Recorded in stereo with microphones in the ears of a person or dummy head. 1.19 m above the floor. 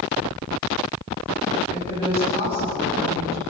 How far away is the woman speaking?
About 7 m.